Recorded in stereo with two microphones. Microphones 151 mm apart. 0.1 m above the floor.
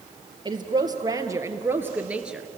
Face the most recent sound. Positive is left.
turn(degrees=-5)  # may be behind; listen again after turning